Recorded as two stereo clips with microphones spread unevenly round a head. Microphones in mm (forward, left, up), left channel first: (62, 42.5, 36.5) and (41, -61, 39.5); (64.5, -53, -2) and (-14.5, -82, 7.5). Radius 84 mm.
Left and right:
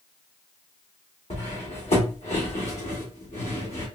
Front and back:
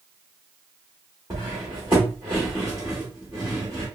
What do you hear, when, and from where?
1.3 s cutlery clinking: 125° left, 1.3 m